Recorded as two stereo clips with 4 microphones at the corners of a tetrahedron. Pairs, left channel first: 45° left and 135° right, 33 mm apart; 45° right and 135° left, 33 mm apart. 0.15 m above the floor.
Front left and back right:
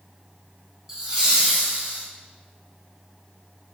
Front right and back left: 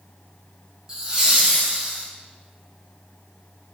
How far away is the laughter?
About 1.1 m.